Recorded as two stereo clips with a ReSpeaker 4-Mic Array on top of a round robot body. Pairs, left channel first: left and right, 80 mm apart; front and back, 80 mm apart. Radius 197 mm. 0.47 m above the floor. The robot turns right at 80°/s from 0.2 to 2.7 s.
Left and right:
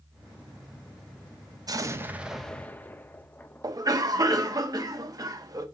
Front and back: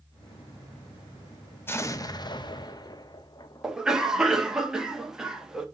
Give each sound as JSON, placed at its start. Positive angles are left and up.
{"t": 1.7, "sound": "an explosion", "azimuth_deg": -60, "distance_m": 1.0}
{"t": 3.6, "sound": "a cough", "azimuth_deg": -100, "distance_m": 1.6}